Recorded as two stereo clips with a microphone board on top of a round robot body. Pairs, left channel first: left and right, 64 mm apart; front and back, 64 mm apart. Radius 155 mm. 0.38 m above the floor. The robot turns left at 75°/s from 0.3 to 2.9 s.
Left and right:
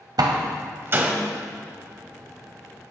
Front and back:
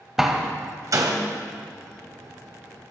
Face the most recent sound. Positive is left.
turn(degrees=70)